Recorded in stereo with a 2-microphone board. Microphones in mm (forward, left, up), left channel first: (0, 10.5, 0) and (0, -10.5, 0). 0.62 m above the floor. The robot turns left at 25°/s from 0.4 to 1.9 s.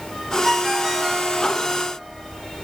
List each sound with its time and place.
0.4 s a ringtone: 15° right (ahead or behind), 1.1 m; by 1.4 s 35° right (ahead or behind), 1.1 m